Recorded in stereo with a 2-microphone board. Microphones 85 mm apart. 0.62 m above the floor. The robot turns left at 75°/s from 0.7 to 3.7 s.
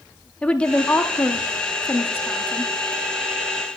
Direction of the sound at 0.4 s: 155° left.